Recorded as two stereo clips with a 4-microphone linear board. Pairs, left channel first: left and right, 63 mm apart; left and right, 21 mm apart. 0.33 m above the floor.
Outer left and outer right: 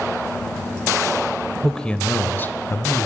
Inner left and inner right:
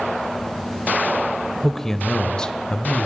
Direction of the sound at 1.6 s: 10° left (ahead or behind).